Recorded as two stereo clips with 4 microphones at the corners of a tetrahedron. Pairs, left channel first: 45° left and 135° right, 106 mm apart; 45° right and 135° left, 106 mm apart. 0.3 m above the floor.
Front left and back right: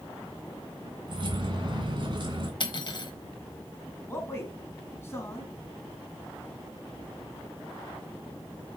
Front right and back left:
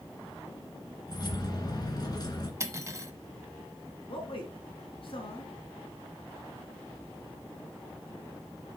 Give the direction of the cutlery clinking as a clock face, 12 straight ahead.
9 o'clock.